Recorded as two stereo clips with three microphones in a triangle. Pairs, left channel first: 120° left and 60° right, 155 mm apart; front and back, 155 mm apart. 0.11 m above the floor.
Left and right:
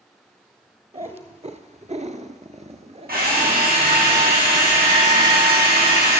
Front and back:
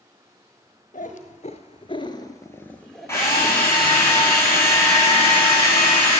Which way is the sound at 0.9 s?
20° right.